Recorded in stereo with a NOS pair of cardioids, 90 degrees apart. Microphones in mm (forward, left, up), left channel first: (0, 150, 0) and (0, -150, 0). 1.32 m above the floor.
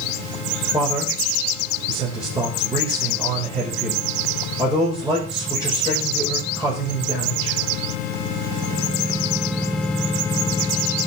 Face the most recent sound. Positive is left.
turn(degrees=-10)